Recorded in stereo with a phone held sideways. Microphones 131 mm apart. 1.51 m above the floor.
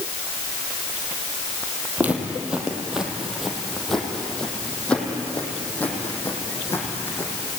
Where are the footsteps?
15° right (ahead or behind), 3.5 m; by 7.3 s 20° left (ahead or behind), 5.5 m.